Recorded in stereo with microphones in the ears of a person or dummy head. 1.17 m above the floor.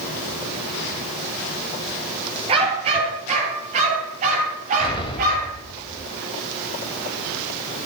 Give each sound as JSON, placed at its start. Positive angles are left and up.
{"t": 2.5, "sound": "a dog barking", "side_deg": -30, "distance_m": 6.0}
{"t": 4.8, "sound": "an explosion", "side_deg": 20, "distance_m": 2.5}